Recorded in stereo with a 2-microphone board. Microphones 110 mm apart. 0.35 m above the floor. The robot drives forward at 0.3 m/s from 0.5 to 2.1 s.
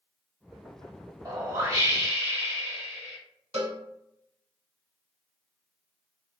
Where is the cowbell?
80° right, 0.9 m.